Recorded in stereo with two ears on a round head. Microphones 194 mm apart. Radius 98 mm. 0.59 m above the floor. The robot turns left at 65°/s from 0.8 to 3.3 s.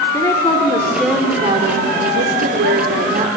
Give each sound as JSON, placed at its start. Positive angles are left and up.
{"t": 0.1, "sound": "a woman speaking", "azimuth_deg": 20, "distance_m": 2.0}